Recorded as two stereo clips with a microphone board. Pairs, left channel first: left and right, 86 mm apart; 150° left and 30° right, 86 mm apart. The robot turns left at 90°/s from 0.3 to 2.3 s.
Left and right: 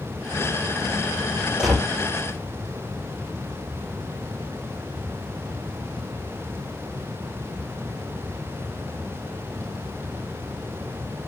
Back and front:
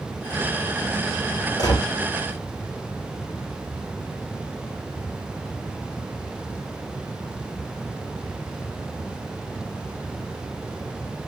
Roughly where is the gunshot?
Behind.